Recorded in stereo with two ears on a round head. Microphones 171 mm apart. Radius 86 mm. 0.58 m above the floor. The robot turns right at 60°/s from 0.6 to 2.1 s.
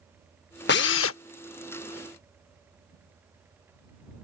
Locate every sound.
0.7 s a drill: 55° left; by 1.2 s 85° left